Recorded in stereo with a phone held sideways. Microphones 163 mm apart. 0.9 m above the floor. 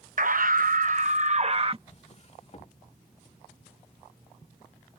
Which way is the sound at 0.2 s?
55° right (ahead or behind).